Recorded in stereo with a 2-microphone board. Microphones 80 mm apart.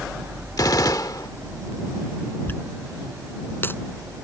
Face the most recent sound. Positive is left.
turn(degrees=30)  # may be behind; listen again after turning